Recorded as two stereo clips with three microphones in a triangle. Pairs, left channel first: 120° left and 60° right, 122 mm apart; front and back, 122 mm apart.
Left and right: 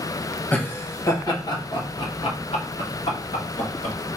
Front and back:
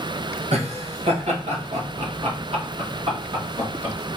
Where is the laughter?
165° right, 1.4 m; by 4.0 s 130° left, 2 m.